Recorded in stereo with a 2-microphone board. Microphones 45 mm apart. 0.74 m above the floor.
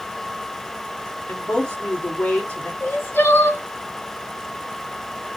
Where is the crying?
65° left (ahead or behind), 1.7 m.